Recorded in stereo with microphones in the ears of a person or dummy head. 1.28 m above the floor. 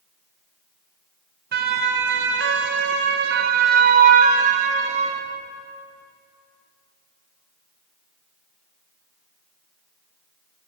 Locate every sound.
1.5 s a siren: 50° right (ahead or behind), 2 m; by 5.2 s 40° right (ahead or behind), 3 m